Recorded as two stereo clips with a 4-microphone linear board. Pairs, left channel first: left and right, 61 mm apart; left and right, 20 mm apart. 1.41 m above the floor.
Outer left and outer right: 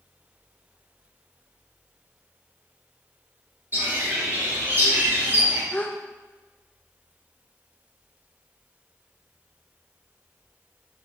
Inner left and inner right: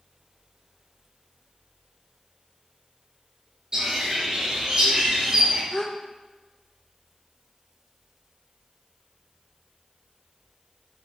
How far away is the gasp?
About 0.6 m.